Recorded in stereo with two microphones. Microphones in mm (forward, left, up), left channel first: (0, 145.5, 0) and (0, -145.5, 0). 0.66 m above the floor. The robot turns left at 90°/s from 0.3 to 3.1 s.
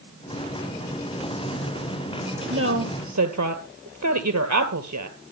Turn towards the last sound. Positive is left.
turn(degrees=-70)  # may be behind; listen again after turning